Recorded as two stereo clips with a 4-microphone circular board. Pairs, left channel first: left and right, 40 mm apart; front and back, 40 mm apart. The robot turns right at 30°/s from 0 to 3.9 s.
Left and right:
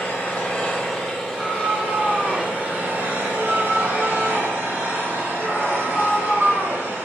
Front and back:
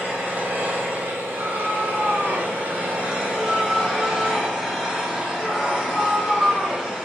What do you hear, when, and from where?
0.0 s an engine running: 145° left, 3.5 m; by 7.0 s 95° right, 3.5 m
1.3 s a scream: 140° right, 3.5 m; by 6.9 s 60° right, 3.5 m